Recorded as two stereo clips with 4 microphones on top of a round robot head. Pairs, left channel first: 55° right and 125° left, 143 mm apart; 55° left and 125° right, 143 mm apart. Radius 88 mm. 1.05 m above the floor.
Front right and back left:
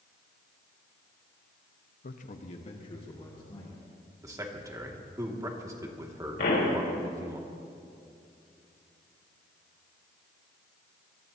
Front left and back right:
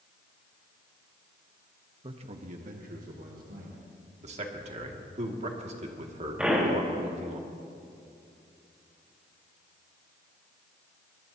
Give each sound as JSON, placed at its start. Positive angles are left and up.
{"t": 2.0, "sound": "a man speaking", "azimuth_deg": -70, "distance_m": 1.0}
{"t": 4.2, "sound": "a man speaking", "azimuth_deg": -165, "distance_m": 2.0}
{"t": 6.4, "sound": "a pop", "azimuth_deg": -45, "distance_m": 4.0}